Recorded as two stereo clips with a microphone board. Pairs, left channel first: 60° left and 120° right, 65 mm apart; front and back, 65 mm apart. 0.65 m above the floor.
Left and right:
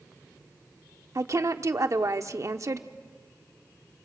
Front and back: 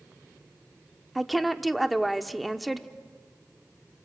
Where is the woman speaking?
90° right, 1.1 m.